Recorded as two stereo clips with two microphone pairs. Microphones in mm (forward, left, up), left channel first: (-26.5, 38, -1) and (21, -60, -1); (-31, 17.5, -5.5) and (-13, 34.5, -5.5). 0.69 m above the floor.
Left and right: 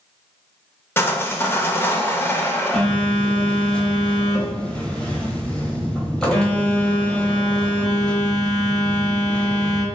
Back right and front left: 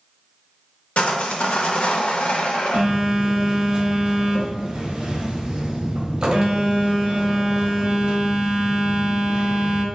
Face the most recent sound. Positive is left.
turn(degrees=40)